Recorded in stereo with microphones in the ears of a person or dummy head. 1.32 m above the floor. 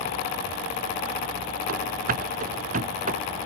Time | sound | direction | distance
1.7 | running footsteps | 60° right (ahead or behind) | ?